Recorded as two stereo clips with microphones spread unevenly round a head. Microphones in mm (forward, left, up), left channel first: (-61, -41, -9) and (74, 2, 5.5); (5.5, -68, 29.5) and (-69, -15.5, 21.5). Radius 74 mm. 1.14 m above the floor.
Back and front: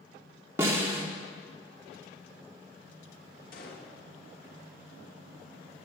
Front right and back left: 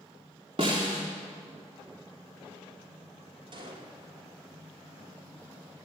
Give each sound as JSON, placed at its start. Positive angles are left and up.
{"t": 0.6, "sound": "a snare drum", "azimuth_deg": 90, "distance_m": 2.0}
{"t": 3.5, "sound": "a gunshot", "azimuth_deg": 170, "distance_m": 2.5}